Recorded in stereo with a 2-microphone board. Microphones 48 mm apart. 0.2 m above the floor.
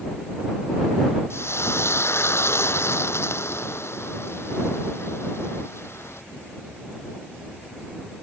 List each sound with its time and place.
1.3 s frying: 65° left (ahead or behind)